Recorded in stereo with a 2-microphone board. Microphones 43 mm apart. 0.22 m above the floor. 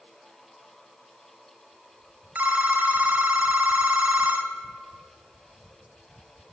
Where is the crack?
I don't hear a crack.